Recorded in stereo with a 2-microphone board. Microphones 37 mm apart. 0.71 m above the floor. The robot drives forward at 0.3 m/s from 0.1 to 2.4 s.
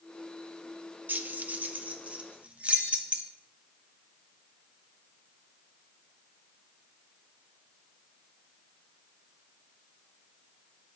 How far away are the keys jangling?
About 0.5 m.